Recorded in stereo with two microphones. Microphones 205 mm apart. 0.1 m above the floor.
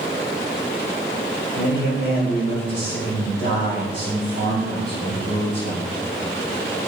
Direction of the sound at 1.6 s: 65° left (ahead or behind).